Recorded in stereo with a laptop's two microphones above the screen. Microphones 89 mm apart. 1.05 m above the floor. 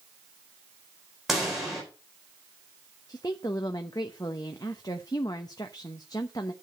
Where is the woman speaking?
45° left (ahead or behind), 0.9 m.